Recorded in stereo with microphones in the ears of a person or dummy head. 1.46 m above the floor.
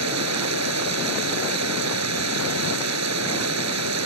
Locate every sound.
0.0 s running water: 90° right